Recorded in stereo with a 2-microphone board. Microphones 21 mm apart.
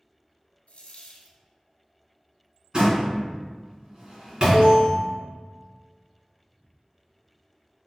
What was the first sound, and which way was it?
A dropped coin, 85° left.